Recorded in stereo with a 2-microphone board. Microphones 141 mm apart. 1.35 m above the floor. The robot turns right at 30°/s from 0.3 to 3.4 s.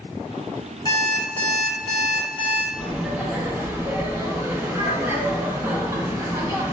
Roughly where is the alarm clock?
Behind left.